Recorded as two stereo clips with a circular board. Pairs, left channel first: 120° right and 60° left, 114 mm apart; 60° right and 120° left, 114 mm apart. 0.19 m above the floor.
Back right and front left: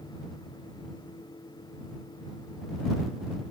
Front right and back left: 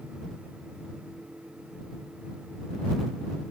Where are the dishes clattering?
I don't hear dishes clattering.